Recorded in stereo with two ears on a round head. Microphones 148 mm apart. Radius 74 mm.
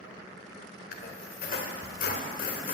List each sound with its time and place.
0.9 s a squeak: 55° left (ahead or behind), 1.9 m